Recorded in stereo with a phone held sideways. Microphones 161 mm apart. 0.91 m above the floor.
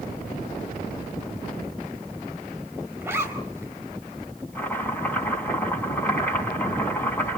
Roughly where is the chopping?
Centre.